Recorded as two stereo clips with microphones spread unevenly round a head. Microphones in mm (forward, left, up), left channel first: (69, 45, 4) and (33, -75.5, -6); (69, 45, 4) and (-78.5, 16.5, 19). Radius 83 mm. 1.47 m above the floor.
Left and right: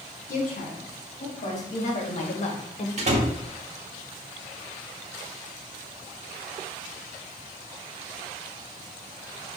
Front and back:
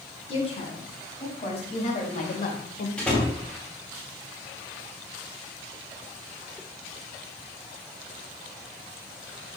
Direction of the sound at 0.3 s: 60° left.